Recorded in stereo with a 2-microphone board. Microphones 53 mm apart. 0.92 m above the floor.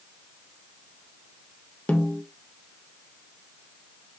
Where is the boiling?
I don't hear boiling.